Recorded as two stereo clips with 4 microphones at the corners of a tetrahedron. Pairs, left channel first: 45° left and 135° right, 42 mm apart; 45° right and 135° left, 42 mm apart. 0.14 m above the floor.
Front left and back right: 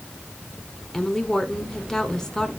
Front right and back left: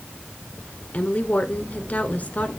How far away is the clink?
I don't hear a clink.